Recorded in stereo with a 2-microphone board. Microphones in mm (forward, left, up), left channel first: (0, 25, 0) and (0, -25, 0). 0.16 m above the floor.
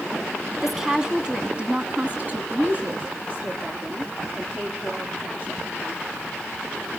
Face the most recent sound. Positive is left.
turn(degrees=-35)  # may be behind; listen again after turning